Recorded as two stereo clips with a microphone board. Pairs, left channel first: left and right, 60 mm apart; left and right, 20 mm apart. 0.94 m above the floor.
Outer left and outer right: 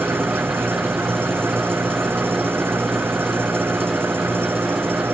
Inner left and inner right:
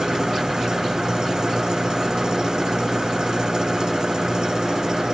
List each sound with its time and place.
0.0 s an engine running: 40° right (ahead or behind)